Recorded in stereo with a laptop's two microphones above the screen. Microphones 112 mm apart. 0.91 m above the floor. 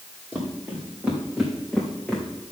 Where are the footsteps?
10° right (ahead or behind), 3.5 m; by 2.2 s 5° left (ahead or behind), 3.5 m.